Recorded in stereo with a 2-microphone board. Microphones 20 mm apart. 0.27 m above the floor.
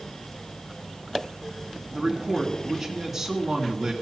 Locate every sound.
1.9 s a man speaking: 20° right (ahead or behind), 3 m